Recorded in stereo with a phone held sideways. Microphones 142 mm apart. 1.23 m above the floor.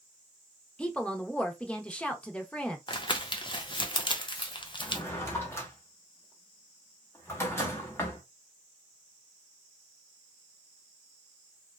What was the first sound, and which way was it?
A woman speaking, 10° left (ahead or behind).